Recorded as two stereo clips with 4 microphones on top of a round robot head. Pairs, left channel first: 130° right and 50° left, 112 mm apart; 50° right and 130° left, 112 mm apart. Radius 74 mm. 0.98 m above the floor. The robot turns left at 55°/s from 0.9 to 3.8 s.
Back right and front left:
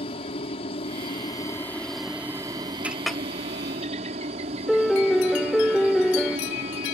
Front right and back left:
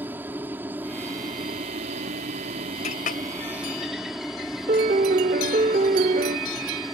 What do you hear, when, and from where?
0.0 s a helicopter: 160° right; by 7.0 s 40° left
2.8 s a clink: 25° right; by 3.2 s 45° right
4.7 s a piano: 140° left